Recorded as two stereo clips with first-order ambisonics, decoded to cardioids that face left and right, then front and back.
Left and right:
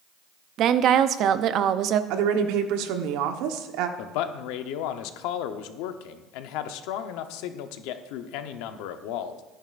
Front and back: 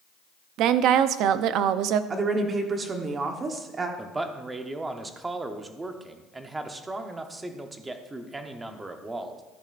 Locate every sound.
0.6 s a woman speaking: 140° right, 0.5 m
2.1 s a woman speaking: 110° right, 1.1 m
4.0 s a man speaking: 100° left, 0.8 m